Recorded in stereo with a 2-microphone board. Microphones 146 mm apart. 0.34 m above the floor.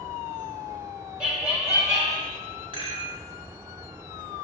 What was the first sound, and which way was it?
Laughter, 5° right (ahead or behind).